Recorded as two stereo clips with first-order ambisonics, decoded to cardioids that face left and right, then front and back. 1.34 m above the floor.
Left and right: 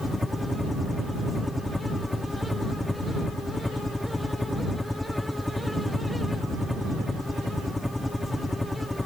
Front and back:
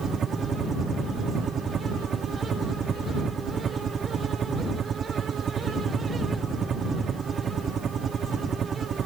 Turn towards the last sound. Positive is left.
turn(degrees=165)